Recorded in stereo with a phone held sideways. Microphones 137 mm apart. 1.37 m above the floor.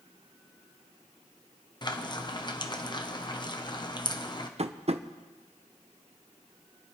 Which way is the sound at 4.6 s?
50° right (ahead or behind).